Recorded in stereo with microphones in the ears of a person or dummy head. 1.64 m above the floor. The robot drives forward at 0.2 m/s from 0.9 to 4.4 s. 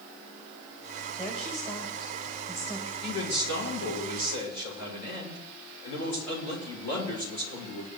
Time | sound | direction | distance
1.2 | a woman speaking | 20° left (ahead or behind) | 2.5 m
3.0 | a man speaking | 60° left (ahead or behind) | 8 m